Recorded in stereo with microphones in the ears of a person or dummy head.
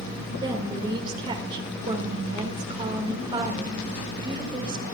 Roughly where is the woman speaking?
Right.